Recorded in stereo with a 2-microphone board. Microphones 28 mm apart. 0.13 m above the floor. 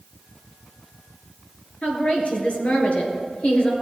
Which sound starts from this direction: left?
A woman speaking, at 1.8 s.